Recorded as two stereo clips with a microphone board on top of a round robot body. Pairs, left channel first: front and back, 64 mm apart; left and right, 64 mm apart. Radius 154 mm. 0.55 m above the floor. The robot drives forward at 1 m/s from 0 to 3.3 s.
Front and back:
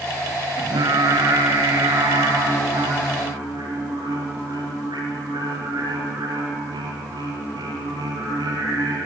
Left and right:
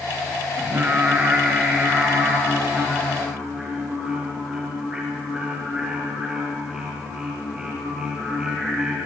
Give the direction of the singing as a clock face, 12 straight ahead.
5 o'clock.